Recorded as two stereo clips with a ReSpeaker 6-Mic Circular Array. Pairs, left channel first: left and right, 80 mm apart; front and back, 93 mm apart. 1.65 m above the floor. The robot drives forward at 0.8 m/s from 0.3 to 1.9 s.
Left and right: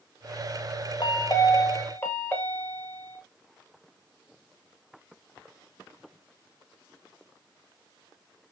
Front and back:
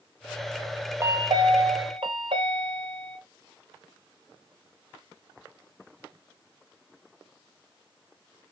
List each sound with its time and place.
1.0 s a chime: 120° left, 0.6 m; by 3.2 s 155° left, 1.1 m